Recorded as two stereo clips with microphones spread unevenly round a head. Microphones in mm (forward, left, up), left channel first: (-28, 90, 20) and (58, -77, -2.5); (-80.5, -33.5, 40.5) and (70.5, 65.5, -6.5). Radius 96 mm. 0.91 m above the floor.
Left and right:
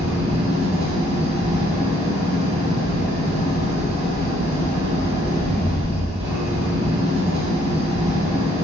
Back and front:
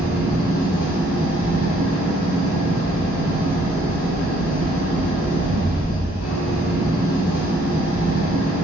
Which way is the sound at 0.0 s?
125° right.